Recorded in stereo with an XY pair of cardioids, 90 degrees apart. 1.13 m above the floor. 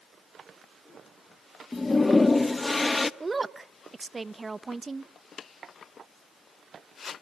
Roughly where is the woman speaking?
Ahead right.